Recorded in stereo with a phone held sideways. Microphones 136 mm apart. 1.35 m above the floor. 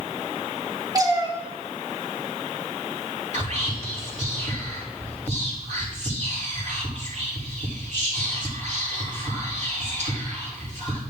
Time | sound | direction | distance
0.9 | a cat meowing | 25° right (ahead or behind) | 1.5 m
3.3 | whispering | 60° right (ahead or behind) | 4 m